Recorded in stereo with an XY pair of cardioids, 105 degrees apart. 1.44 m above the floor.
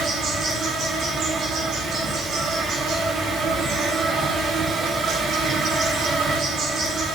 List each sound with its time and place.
0.0 s an insect: 70° right, 7 m